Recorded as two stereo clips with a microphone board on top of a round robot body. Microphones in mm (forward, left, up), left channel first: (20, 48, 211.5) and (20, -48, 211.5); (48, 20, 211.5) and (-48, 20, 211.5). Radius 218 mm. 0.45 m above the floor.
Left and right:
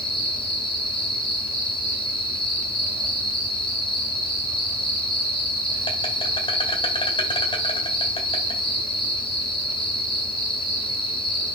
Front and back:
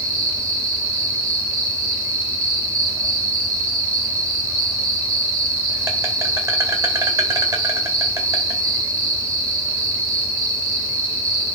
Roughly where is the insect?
Behind left.